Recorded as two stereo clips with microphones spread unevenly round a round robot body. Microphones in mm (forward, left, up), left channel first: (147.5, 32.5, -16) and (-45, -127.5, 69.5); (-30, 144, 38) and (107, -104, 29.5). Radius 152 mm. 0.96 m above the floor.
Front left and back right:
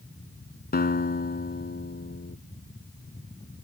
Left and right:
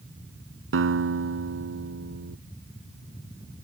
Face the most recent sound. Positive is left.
turn(degrees=-15)